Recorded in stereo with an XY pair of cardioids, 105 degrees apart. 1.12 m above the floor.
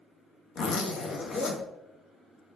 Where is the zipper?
60° left, 1.1 m.